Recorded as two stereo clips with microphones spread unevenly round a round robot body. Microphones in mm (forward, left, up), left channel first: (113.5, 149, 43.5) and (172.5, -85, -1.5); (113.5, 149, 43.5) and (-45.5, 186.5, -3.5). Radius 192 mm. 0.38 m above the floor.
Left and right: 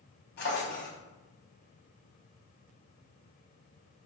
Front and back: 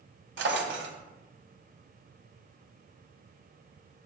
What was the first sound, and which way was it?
A drawer, 170° left.